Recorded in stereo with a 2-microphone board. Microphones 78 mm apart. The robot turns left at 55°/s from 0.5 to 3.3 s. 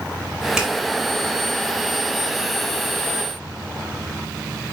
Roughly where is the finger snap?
Centre.